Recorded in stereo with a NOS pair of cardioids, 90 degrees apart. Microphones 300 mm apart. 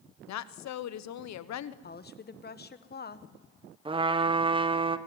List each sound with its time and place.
0.3 s a woman speaking: 65° left, 1.0 m
1.8 s a woman speaking: 35° left, 1.4 m
3.9 s a trumpet: 15° right, 1.2 m